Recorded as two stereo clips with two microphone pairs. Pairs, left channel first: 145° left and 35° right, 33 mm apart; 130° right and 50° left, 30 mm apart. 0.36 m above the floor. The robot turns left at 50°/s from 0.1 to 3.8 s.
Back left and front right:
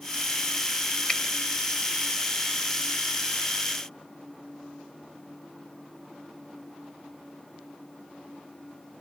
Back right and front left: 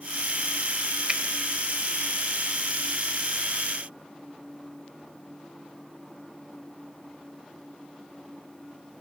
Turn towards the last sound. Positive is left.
turn(degrees=-50)